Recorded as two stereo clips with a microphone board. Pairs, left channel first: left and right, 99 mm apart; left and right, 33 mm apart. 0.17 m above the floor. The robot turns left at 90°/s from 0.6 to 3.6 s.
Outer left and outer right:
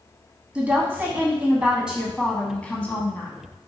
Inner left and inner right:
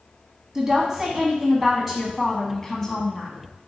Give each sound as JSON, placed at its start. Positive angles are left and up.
{"t": 0.6, "sound": "a woman speaking", "side_deg": -10, "distance_m": 1.0}